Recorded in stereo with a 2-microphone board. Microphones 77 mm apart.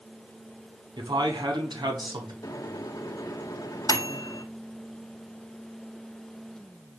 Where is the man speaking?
75° right (ahead or behind), 5.5 m.